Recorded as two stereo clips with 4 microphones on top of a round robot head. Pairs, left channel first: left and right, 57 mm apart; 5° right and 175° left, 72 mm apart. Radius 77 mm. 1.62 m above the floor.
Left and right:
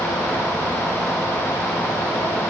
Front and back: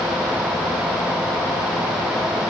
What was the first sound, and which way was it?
Only background noise.